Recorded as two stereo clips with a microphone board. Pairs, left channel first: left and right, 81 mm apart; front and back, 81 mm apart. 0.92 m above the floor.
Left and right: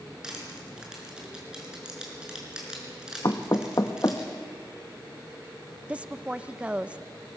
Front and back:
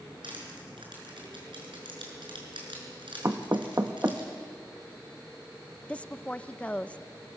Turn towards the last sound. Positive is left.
turn(degrees=-45)